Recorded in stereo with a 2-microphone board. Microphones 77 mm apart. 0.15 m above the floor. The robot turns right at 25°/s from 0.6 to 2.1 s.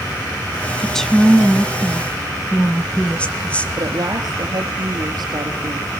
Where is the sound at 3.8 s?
60° right (ahead or behind), 3.5 m.